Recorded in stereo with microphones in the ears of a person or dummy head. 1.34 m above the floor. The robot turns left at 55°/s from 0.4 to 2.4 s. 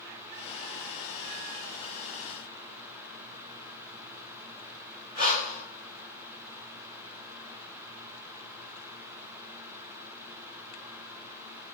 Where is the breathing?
25° right (ahead or behind), 1.1 m.